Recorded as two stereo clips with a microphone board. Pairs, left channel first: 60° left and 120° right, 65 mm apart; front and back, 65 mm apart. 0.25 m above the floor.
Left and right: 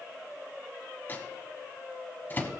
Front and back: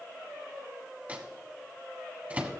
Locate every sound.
1.1 s a microwave: 115° left, 1.3 m